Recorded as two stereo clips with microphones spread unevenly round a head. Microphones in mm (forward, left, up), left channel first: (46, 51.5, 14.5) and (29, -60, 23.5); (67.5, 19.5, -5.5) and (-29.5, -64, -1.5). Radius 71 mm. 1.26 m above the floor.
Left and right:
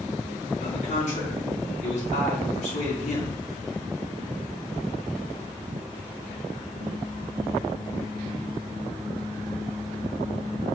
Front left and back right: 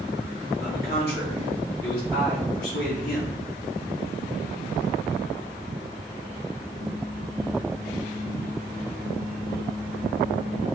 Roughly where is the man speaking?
Ahead left.